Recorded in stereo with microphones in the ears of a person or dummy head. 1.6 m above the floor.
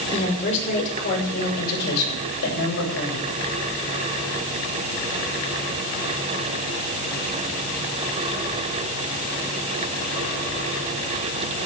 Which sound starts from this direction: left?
A woman speaking, at 0.1 s.